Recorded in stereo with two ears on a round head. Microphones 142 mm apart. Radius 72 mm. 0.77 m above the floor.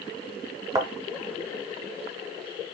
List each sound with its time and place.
0.8 s a thud: 25° right (ahead or behind), 0.8 m